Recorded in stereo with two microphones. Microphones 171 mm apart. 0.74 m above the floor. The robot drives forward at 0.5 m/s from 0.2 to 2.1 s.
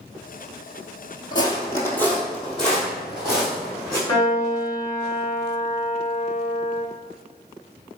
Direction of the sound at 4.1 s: 20° left (ahead or behind).